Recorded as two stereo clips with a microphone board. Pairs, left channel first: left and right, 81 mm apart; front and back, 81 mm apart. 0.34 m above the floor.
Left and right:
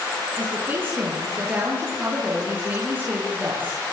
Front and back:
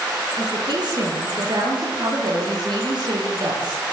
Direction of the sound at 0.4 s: 155° right.